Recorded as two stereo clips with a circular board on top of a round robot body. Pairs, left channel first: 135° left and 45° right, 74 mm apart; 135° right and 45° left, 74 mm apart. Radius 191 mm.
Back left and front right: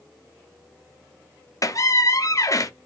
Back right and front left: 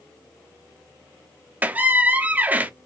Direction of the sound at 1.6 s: 110° left.